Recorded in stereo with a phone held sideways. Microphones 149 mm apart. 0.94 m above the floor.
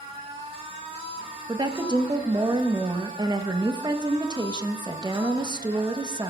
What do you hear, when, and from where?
0.0 s a machine running: 40° right (ahead or behind), 3 m
1.5 s a woman speaking: 30° right (ahead or behind), 1.0 m